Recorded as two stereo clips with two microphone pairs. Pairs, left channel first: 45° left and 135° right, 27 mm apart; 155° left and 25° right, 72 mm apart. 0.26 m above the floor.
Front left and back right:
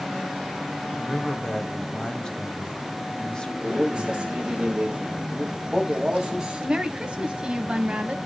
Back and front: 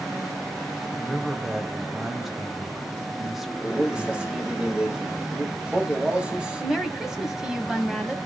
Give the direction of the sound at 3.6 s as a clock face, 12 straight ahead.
3 o'clock.